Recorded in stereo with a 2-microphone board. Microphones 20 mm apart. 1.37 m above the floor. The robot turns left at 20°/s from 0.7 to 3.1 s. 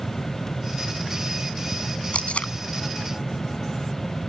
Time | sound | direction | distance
2.1 | tape being pulled | 80° left | ?